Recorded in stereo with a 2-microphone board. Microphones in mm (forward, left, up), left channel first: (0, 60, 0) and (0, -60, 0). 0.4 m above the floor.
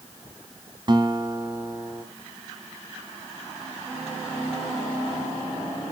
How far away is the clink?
No clink in this recording.